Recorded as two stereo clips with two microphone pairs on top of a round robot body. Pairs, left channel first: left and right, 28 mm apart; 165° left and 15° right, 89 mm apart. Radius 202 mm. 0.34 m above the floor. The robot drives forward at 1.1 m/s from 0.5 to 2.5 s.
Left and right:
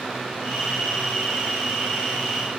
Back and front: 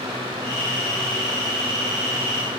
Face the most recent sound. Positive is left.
No sound to turn to.